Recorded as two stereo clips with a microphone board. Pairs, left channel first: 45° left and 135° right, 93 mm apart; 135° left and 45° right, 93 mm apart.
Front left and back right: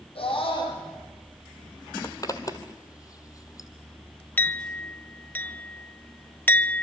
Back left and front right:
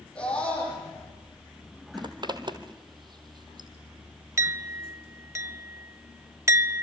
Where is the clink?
15° right, 0.6 m.